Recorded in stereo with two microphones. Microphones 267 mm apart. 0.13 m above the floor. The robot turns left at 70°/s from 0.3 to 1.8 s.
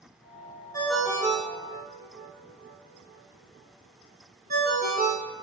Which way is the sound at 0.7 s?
15° left (ahead or behind).